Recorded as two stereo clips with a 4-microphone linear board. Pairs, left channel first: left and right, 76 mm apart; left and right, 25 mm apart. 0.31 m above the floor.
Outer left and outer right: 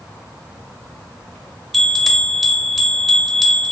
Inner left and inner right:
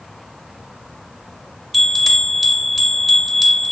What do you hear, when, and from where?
1.7 s a bell: centre (ahead or behind), 0.5 m